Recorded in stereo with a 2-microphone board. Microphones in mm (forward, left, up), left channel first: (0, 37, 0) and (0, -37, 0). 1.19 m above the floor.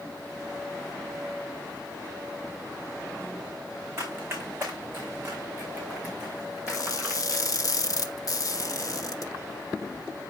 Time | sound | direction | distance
4.0 | running footsteps | 35° right (ahead or behind) | 4.5 m
6.7 | crushing | 50° left (ahead or behind) | 1.1 m